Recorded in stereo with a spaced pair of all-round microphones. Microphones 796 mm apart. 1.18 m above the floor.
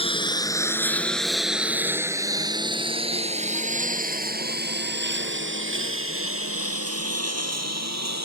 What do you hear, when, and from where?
0.0 s a lawn mower: 5° left (ahead or behind); by 8.3 s 20° right (ahead or behind)